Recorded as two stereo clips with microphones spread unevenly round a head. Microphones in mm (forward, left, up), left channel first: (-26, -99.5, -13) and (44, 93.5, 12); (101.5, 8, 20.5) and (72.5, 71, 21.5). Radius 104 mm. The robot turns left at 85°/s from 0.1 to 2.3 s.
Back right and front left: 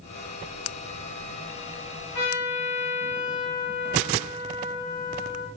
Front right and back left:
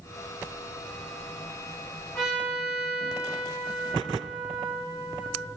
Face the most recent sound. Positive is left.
turn(degrees=-160)